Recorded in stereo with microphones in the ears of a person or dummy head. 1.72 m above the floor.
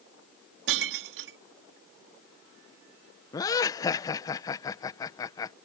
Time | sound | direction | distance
0.7 | breaking glass | 60° right (ahead or behind) | ?
3.3 | laughter | 20° left (ahead or behind) | ?